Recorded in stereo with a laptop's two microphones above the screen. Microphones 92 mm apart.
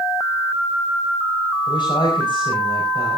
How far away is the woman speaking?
About 5 m.